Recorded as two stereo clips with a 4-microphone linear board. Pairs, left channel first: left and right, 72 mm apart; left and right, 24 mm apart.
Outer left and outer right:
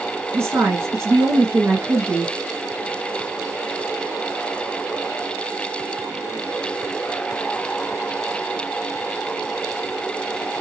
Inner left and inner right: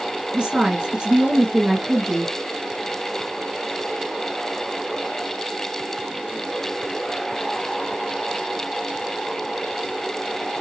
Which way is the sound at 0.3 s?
35° right (ahead or behind).